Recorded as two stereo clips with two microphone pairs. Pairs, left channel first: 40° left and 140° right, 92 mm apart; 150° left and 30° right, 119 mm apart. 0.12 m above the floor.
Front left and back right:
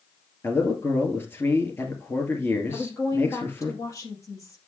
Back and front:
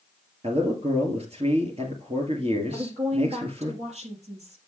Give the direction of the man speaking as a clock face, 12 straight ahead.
1 o'clock.